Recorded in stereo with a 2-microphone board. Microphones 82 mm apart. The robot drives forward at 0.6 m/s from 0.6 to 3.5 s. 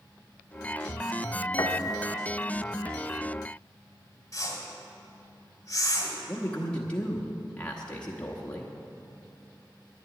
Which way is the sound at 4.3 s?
40° left (ahead or behind).